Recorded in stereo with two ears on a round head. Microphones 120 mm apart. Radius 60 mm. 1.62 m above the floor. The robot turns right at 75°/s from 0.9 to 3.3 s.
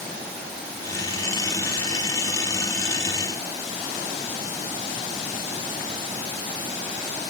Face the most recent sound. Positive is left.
No sound to turn to.